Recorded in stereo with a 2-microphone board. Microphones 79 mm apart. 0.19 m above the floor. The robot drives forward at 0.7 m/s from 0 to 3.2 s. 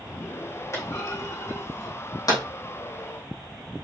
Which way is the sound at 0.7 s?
40° left (ahead or behind).